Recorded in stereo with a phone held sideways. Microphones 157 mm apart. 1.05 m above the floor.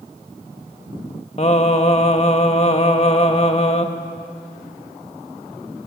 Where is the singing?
45° left (ahead or behind), 1.5 m.